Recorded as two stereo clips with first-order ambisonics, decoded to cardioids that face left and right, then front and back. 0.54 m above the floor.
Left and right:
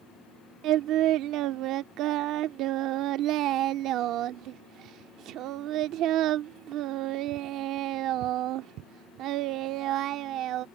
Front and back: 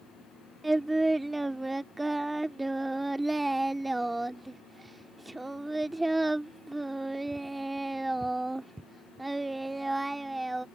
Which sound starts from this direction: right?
Singing, at 0.6 s.